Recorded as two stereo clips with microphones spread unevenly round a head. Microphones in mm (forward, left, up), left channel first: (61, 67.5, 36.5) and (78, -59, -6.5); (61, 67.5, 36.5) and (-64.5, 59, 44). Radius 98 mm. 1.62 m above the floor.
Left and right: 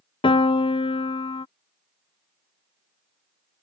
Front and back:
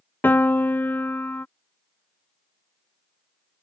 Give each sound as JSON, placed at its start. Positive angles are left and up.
{"t": 0.2, "sound": "a piano", "azimuth_deg": 80}